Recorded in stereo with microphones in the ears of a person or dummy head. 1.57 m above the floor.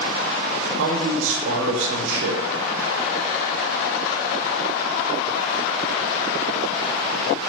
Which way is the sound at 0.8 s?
70° right (ahead or behind).